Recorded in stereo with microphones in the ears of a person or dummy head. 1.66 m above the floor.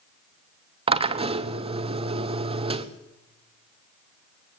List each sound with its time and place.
0.9 s a drill: 30° right (ahead or behind), 1.0 m